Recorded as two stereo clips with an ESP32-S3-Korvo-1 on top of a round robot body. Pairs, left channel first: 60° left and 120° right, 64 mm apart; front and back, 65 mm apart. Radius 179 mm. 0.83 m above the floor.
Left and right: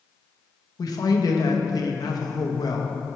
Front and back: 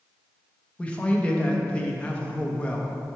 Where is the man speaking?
70° left, 0.9 m.